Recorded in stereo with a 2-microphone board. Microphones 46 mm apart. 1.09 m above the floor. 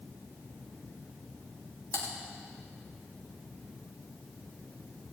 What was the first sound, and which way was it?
Typing on a keyboard, 60° left (ahead or behind).